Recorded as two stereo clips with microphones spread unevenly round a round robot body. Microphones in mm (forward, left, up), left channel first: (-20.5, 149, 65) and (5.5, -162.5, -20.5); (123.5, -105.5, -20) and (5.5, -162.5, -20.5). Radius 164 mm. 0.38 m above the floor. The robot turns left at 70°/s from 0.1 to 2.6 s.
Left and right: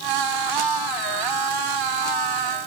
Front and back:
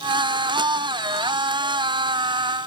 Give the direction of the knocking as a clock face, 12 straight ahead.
I don't hear knocking.